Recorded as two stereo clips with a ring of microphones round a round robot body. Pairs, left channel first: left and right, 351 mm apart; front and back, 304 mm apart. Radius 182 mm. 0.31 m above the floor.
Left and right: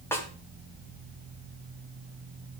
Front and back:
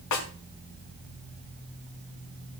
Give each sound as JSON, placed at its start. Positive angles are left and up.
{"t": 0.1, "sound": "a snare drum", "azimuth_deg": 10, "distance_m": 3.0}